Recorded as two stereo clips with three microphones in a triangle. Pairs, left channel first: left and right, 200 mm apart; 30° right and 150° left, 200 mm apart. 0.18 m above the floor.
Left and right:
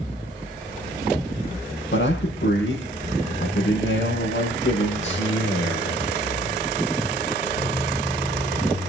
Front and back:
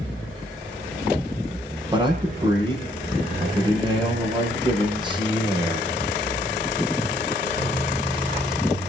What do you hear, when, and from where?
1.9 s a man speaking: 85° left, 6.5 m